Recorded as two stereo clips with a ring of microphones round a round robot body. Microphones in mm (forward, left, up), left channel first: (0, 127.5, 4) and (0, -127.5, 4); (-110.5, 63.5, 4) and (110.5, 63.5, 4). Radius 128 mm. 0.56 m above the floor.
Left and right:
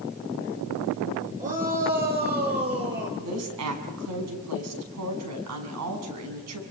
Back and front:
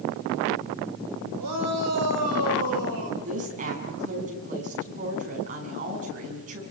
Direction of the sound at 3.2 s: 60° right.